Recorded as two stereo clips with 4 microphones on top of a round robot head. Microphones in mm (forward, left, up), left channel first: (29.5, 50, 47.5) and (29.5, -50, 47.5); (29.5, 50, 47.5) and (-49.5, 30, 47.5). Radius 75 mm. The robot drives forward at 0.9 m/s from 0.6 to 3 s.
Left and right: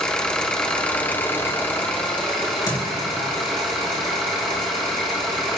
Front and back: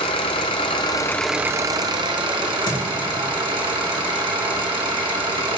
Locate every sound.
0.0 s an engine running: 10° left, 0.7 m; by 5.6 s 175° left, 1.6 m
2.4 s a crack: 40° left, 4.5 m